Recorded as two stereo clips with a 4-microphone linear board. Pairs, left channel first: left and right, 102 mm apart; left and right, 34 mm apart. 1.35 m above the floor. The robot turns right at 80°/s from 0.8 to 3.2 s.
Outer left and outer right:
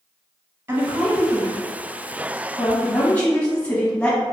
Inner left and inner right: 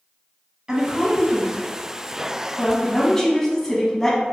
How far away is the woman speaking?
About 0.9 m.